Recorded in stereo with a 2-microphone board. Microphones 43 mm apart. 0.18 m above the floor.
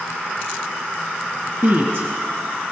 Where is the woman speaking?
55° right (ahead or behind), 2 m; by 2.7 s 50° right (ahead or behind), 1.7 m.